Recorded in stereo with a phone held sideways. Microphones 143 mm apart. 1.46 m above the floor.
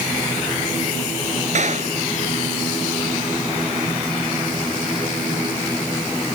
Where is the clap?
55° right (ahead or behind).